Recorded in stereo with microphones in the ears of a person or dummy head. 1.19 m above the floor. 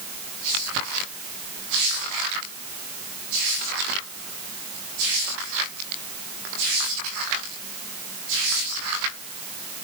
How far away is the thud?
No thud in this recording.